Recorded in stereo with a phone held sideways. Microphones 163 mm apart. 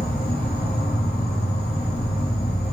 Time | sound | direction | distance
0.0 | an insect | 75° left (ahead or behind) | 0.9 m